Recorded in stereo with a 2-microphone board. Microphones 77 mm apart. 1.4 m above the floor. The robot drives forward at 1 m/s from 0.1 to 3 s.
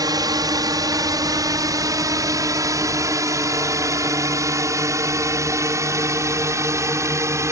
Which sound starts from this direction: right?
A drone, at 0.0 s.